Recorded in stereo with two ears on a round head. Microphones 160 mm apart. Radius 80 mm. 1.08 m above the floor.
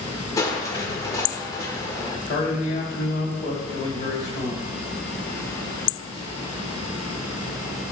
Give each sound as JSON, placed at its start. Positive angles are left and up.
{"t": 0.4, "sound": "crushing", "side_deg": 20, "distance_m": 1.0}
{"t": 2.3, "sound": "a man speaking", "side_deg": 60, "distance_m": 2.5}